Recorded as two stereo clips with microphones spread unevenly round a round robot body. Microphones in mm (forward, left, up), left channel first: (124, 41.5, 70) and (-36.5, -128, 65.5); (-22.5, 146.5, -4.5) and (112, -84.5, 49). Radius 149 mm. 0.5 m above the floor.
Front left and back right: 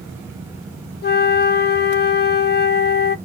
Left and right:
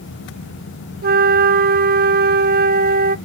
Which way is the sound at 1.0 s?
5° right.